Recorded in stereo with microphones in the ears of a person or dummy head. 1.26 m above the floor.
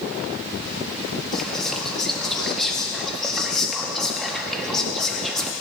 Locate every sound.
1.3 s whispering: 5° right (ahead or behind), 1.9 m